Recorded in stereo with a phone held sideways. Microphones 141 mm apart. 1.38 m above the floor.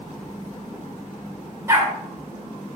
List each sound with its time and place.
1.7 s a dog barking: 20° right (ahead or behind), 2 m